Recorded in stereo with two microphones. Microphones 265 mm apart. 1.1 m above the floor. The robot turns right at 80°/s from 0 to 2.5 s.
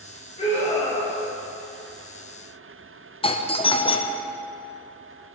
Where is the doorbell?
20° left (ahead or behind), 0.7 m.